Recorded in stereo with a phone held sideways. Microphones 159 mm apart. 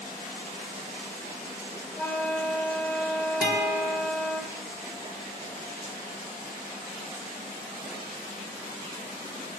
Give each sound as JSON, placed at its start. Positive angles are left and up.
{"t": 2.0, "sound": "a flute", "side_deg": 10, "distance_m": 1.9}
{"t": 3.4, "sound": "a guitar", "side_deg": 80, "distance_m": 3.0}